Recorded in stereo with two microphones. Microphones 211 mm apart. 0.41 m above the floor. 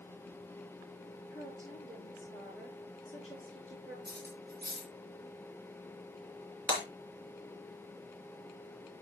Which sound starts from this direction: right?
Cutlery clinking, at 4.0 s.